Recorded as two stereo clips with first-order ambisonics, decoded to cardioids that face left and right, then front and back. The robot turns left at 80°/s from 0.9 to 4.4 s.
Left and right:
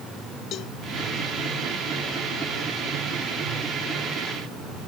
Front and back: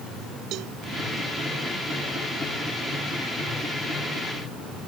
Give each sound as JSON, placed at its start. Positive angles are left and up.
{"t": 0.5, "sound": "a cowbell", "azimuth_deg": 140}